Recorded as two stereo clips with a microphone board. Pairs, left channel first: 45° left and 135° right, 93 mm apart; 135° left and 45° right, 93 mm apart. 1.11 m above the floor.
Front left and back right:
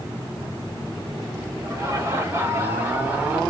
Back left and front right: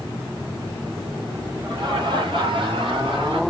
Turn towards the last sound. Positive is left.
turn(degrees=-60)